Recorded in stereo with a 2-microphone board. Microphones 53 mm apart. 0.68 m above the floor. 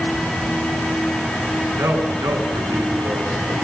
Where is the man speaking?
75° right (ahead or behind), 9 m.